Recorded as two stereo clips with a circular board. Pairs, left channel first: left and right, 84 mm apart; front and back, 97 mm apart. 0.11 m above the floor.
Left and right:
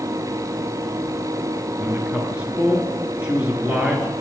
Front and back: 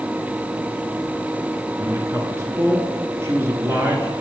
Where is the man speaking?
150° right, 1.5 m.